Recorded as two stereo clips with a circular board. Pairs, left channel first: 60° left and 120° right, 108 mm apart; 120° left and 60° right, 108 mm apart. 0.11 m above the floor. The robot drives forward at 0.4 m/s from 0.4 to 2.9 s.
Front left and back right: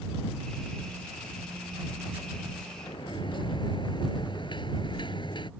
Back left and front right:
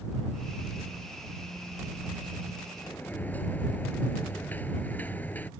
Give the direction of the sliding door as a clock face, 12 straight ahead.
10 o'clock.